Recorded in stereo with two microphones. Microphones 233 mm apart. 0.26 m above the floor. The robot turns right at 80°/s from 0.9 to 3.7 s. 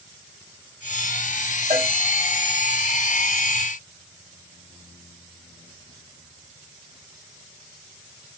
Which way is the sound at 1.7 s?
25° right (ahead or behind).